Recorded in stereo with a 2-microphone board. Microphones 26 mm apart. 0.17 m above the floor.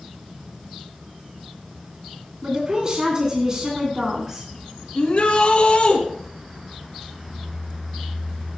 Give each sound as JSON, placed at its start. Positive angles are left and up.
{"t": 2.4, "sound": "a woman speaking", "side_deg": -35, "distance_m": 1.9}
{"t": 5.0, "sound": "a shout", "side_deg": 50, "distance_m": 1.8}